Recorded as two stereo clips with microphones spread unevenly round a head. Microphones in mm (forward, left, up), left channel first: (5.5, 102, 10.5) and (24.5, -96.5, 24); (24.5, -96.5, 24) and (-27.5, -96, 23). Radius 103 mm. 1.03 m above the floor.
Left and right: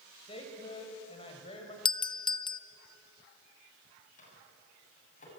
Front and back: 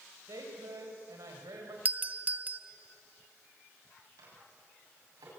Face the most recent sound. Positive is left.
turn(degrees=150)